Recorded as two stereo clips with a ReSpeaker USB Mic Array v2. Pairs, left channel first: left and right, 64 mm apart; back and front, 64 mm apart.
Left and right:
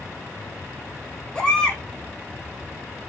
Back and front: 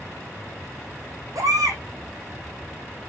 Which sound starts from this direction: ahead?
A baby crying, at 1.4 s.